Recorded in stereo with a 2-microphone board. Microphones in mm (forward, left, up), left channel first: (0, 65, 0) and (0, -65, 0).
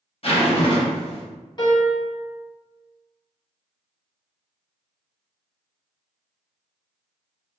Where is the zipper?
50° left (ahead or behind), 0.8 m.